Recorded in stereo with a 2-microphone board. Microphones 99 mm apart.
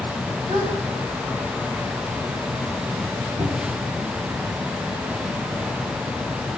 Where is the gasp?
70° right (ahead or behind), 10 m.